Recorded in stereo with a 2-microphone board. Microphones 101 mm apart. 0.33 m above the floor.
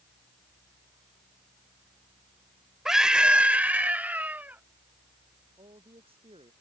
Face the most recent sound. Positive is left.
turn(degrees=-70)  # may be behind; listen again after turning